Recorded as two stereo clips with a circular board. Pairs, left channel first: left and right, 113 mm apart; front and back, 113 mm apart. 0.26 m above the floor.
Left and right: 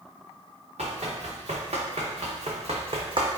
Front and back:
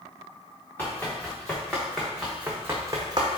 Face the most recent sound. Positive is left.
turn(degrees=-140)